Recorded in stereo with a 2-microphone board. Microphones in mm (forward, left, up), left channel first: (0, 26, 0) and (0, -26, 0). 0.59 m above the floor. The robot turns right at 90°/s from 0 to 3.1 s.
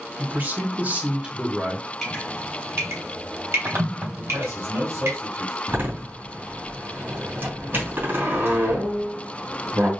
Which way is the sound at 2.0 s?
10° left (ahead or behind).